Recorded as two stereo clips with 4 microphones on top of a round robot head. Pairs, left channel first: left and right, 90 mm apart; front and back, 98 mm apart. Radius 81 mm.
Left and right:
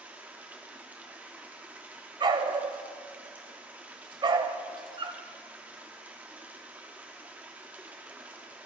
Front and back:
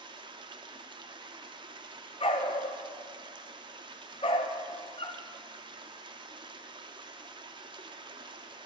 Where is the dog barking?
50° right, 0.8 m.